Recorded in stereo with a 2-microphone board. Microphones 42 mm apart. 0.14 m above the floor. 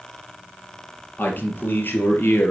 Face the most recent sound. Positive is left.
turn(degrees=55)  # may be behind; listen again after turning